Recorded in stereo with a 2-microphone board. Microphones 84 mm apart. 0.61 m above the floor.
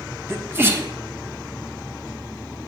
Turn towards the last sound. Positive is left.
turn(degrees=-30)  # may be behind; listen again after turning